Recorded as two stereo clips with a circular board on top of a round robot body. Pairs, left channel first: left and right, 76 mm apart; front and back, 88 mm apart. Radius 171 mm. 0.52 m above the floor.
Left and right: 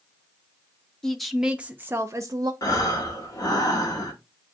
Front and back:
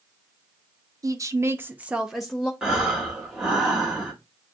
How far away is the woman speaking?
About 0.9 m.